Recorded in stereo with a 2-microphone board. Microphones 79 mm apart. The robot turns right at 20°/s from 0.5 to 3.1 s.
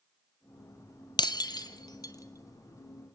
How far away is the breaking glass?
About 1.0 m.